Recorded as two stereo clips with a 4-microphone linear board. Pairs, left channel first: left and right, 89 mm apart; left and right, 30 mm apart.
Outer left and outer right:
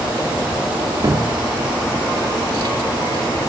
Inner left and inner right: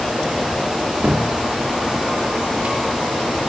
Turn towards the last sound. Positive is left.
turn(degrees=-55)  # may be behind; listen again after turning